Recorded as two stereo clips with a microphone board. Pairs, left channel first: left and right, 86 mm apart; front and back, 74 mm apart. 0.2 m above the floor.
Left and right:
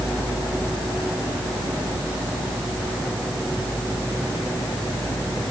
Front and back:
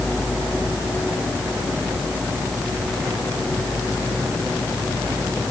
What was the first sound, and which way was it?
Only background noise.